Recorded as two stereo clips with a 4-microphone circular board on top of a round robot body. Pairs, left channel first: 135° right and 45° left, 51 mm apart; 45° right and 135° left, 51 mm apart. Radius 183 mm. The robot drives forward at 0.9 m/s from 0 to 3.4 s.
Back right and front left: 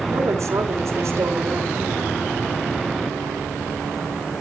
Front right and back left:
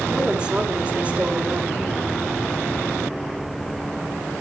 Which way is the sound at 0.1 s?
55° left.